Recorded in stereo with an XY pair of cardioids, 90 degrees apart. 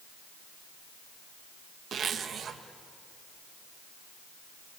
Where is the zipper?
60° right, 1.6 m.